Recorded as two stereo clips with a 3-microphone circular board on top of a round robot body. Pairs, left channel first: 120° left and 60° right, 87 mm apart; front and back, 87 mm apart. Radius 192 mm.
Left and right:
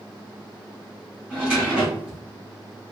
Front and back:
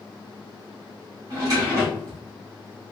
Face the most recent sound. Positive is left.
turn(degrees=-135)